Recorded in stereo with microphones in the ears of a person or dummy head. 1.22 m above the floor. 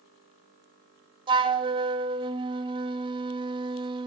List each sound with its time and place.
1.3 s a flute: 20° right (ahead or behind), 0.6 m